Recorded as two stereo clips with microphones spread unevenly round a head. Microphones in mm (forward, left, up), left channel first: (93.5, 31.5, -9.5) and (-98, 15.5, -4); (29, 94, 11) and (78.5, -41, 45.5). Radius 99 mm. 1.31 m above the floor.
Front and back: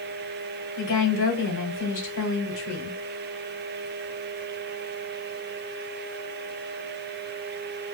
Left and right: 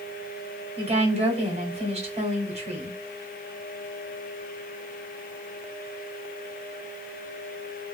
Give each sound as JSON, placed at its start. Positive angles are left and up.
{"t": 0.8, "sound": "a woman speaking", "azimuth_deg": -20, "distance_m": 2.0}